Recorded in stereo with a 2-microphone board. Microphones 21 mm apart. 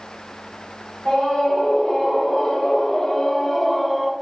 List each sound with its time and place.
1.1 s a scream: 30° left (ahead or behind), 2.5 m; by 4.1 s 5° right (ahead or behind), 1.1 m